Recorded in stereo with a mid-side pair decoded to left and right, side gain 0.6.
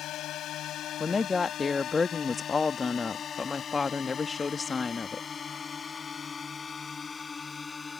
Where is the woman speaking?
25° left.